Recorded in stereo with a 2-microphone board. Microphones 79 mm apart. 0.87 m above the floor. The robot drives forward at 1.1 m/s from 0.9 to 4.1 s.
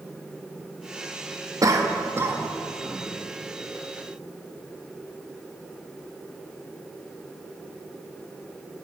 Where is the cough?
45° right (ahead or behind), 1.2 m; by 3.1 s 20° right (ahead or behind), 2.5 m.